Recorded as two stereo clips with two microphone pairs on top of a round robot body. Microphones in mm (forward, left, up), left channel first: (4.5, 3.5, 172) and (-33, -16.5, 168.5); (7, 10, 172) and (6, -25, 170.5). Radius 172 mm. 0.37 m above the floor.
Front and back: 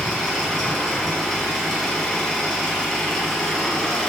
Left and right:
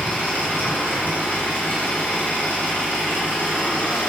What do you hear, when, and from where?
0.0 s an engine running: 115° left, 1.8 m